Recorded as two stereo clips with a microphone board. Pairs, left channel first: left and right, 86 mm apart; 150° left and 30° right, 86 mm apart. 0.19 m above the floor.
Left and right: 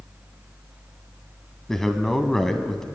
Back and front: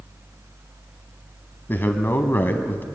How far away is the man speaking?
About 1.2 m.